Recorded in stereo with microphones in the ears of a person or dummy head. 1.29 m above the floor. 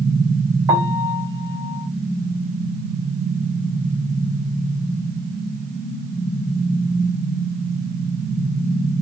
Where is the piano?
15° right (ahead or behind), 1.6 m.